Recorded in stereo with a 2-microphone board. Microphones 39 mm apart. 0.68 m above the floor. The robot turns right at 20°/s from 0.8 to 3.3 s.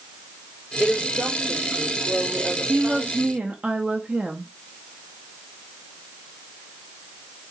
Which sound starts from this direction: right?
A woman speaking, at 2.7 s.